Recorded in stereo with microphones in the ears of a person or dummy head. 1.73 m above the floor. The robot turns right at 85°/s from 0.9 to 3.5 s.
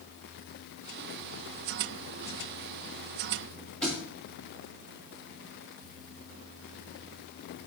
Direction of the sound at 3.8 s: 5° left (ahead or behind).